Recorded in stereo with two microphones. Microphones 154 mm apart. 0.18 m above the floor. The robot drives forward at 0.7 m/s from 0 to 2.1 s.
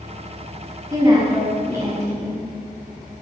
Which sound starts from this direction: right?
A woman speaking, at 0.9 s.